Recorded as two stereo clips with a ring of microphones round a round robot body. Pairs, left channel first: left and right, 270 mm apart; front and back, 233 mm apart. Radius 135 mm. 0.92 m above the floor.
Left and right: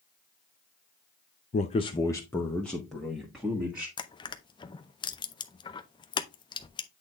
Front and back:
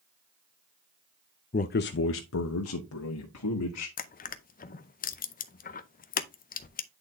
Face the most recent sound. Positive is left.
turn(degrees=25)